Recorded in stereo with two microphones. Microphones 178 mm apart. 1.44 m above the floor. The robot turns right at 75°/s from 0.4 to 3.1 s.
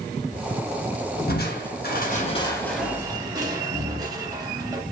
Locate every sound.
1.3 s crushing: 60° left (ahead or behind), 0.7 m; by 4.8 s 20° right (ahead or behind), 0.7 m